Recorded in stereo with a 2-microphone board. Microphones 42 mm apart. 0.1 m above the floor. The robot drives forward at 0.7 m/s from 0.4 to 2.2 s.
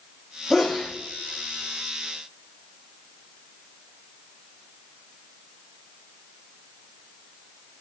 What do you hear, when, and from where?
0.5 s a sneeze: 10° right (ahead or behind), 4 m